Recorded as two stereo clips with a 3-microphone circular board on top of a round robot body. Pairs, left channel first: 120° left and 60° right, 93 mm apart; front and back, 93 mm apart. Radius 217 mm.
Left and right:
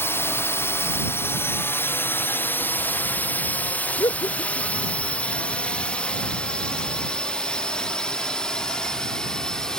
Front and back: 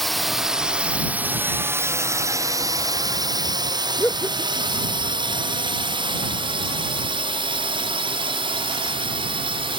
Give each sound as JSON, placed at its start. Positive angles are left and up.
{"t": 0.0, "sound": "a drone", "azimuth_deg": 85}
{"t": 4.0, "sound": "laughter", "azimuth_deg": 70}